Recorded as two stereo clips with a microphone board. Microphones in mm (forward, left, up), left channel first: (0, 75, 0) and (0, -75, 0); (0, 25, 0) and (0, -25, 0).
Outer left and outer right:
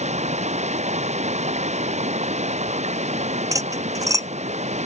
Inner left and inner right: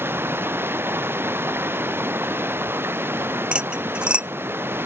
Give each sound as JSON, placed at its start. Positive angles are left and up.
{"t": 0.0, "sound": "running water", "side_deg": -50}
{"t": 3.5, "sound": "cutlery clinking", "side_deg": -20}